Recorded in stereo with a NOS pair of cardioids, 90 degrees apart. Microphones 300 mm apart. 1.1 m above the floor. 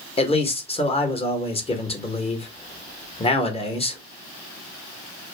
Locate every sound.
0.2 s a man speaking: 20° left, 0.9 m